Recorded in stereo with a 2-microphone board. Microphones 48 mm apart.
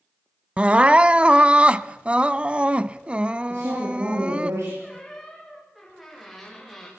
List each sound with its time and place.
0.6 s crying: 25° right (ahead or behind), 0.5 m
3.5 s a woman speaking: 80° right, 8.5 m
4.8 s a squeak: centre (ahead or behind), 8.5 m